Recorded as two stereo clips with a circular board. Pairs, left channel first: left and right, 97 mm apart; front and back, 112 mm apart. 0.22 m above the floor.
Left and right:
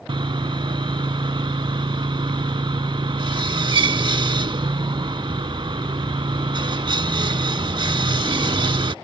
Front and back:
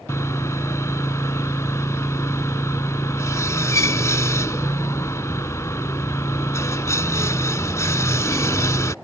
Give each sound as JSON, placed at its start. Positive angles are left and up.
{"t": 0.1, "sound": "sawing", "azimuth_deg": -60}